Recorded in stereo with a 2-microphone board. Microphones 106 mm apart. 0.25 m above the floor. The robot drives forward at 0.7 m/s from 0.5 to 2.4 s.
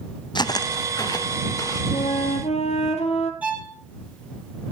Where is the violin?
15° right (ahead or behind), 3 m.